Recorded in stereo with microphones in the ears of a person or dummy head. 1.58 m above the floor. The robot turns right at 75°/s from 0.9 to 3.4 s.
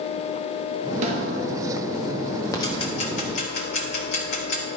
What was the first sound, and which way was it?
A snare drum, 45° right (ahead or behind).